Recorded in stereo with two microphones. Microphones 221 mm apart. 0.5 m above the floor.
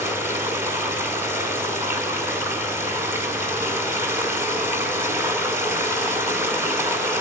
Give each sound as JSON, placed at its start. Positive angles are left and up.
{"t": 0.0, "sound": "running water", "side_deg": -10, "distance_m": 4.0}